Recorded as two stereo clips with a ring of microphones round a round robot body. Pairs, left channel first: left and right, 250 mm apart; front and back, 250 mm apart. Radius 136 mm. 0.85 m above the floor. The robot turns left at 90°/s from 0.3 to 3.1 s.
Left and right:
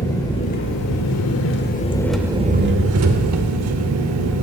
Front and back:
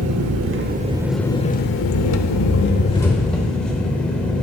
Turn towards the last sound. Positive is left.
turn(degrees=-85)